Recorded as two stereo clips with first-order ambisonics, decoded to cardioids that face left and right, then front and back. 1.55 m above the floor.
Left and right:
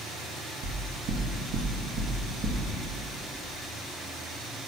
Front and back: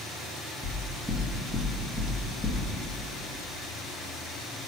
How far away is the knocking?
About 1.1 m.